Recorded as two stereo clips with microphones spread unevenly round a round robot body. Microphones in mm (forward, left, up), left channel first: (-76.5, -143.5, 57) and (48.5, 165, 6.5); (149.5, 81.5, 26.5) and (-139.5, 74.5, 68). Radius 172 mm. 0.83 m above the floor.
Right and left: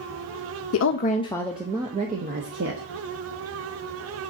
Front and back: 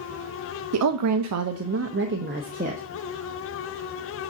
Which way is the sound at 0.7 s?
155° right.